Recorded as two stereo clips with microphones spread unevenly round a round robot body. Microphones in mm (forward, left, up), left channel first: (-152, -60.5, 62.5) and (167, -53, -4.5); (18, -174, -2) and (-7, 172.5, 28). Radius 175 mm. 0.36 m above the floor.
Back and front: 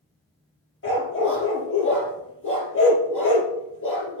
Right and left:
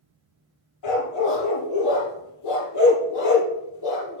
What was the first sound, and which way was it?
A dog barking, 125° right.